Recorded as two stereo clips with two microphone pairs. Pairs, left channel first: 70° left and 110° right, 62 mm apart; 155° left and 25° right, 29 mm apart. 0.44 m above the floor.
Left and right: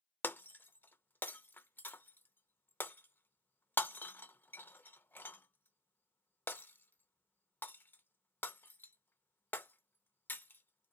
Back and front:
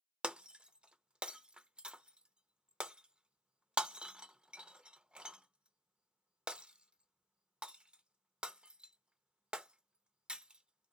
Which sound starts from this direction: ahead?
Breaking glass, at 0.2 s.